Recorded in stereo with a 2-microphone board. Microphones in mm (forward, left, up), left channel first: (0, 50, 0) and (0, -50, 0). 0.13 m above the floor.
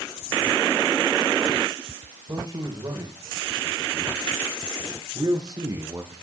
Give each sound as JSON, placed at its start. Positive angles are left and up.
{"t": 2.3, "sound": "a man speaking", "side_deg": -45, "distance_m": 8.5}